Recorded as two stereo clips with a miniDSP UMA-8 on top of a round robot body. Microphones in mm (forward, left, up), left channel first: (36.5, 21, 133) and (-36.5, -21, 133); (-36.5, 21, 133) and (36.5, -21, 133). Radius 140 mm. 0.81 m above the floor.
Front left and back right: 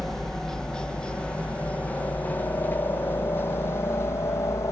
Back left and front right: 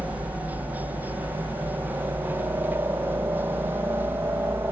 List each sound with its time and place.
0.0 s a helicopter: 50° right; by 4.7 s 10° left